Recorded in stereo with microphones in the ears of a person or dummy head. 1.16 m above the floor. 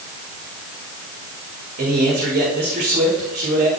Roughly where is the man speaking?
Right.